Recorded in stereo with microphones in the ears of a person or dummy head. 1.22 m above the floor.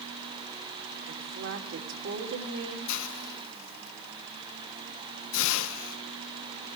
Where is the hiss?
70° left (ahead or behind), 0.7 m.